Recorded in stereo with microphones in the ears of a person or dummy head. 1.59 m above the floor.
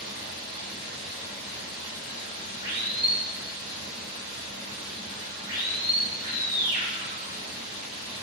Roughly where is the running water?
Right.